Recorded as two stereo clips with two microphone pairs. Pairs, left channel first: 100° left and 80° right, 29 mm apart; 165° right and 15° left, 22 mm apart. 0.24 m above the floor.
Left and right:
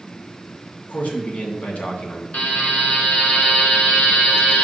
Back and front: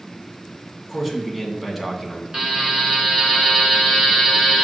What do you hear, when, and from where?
0.9 s a man speaking: 95° left, 1.8 m
2.3 s a buzzer: 70° left, 2.5 m